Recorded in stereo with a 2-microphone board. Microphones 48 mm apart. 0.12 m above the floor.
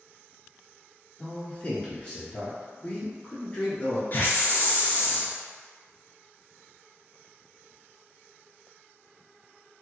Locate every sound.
1.2 s a man speaking: 25° left (ahead or behind), 1.1 m
4.1 s a hiss: 45° left (ahead or behind), 0.7 m